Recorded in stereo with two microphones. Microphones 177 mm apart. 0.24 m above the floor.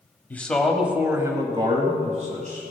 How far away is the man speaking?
About 1.2 m.